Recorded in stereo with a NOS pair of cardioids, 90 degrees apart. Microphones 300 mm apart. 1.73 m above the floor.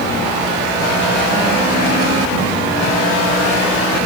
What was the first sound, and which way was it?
Only background noise.